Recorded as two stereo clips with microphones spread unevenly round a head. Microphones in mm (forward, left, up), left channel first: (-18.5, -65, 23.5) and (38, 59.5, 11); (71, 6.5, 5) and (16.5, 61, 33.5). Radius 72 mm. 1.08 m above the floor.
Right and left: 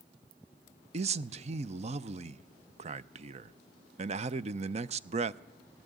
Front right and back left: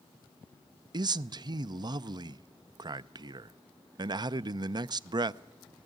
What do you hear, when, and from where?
0.9 s a man speaking: 95° left, 0.5 m